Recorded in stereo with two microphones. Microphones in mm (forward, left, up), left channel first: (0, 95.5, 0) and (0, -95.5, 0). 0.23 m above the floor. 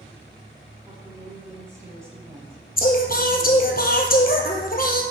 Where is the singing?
50° left (ahead or behind), 1.3 m.